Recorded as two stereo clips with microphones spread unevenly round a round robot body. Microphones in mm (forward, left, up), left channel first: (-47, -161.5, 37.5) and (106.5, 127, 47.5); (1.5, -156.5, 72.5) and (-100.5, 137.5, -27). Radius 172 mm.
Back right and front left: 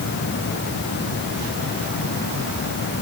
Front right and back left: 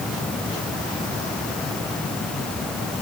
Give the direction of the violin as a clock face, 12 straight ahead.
I don't hear a violin.